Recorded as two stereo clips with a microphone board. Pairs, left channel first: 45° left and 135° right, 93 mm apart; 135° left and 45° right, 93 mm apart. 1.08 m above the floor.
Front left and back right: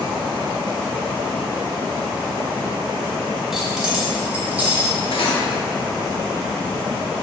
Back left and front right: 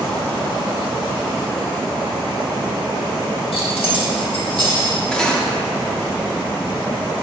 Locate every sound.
3.5 s keys jangling: 140° left, 1.4 m; by 5.0 s 155° left, 2 m
5.1 s cutlery clinking: 55° left, 1.0 m